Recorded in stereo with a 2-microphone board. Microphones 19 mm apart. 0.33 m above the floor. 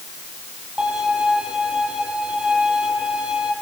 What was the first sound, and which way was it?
A violin, 55° right (ahead or behind).